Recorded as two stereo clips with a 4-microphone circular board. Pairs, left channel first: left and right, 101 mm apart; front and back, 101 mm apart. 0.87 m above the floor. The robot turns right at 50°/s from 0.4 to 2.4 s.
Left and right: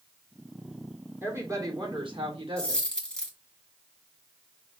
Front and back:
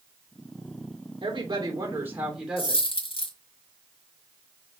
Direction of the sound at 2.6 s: 10° left.